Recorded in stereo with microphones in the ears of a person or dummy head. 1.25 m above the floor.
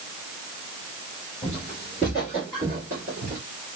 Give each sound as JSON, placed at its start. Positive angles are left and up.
{"t": 1.4, "sound": "footsteps", "side_deg": 10, "distance_m": 1.2}